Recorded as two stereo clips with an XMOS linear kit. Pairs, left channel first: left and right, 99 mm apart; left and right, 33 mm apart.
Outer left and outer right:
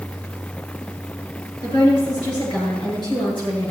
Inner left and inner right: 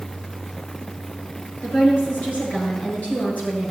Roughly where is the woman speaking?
Left.